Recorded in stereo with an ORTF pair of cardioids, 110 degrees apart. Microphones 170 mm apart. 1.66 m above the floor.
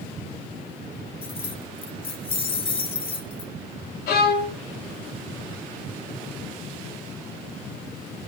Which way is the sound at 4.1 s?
65° left.